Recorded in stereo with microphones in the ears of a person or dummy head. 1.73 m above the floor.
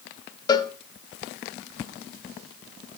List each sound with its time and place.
0.5 s a cowbell: 20° left (ahead or behind), 0.5 m